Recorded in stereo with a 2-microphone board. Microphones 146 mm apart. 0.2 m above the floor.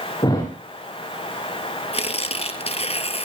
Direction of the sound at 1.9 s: 45° left (ahead or behind).